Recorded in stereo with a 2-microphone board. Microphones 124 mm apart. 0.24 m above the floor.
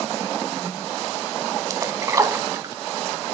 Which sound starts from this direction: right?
A splash, at 1.7 s.